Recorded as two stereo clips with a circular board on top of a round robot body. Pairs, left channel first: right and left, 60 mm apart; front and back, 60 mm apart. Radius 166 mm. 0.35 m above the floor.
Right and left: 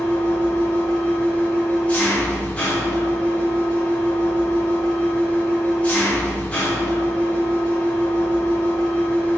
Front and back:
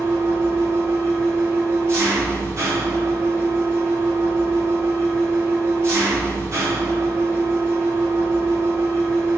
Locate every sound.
0.0 s an engine running: 155° right, 1.6 m